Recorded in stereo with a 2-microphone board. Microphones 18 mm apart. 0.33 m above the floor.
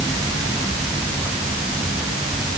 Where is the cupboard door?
No cupboard door in this recording.